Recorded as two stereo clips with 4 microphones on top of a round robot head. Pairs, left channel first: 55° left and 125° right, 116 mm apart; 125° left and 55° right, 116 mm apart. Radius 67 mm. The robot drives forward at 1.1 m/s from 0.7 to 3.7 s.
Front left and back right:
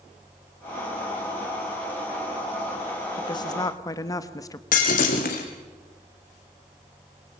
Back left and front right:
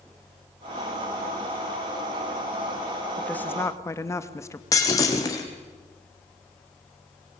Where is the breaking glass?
60° left, 3 m.